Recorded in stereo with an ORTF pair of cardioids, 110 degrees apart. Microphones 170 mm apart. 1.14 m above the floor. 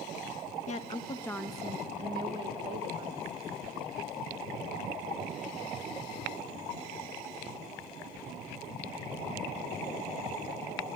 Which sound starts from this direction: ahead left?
A woman speaking, at 0.7 s.